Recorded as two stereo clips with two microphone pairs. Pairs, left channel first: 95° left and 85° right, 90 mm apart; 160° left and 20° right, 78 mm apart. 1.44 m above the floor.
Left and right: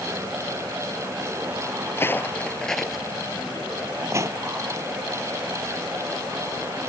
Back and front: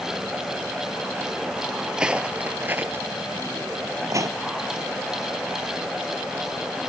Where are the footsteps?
60° left; by 4.4 s 45° right.